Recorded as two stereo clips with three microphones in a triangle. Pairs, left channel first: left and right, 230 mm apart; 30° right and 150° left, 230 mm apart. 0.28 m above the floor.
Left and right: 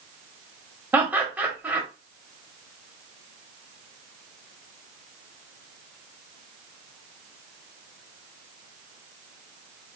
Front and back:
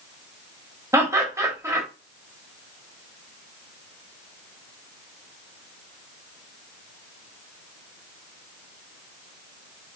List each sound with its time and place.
0.9 s laughter: 160° right, 0.9 m